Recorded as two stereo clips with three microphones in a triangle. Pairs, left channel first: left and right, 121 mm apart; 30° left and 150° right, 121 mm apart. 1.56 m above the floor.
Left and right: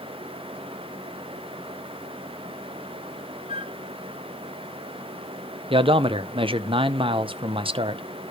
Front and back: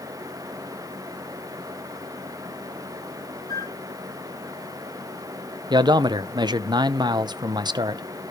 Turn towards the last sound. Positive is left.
turn(degrees=-110)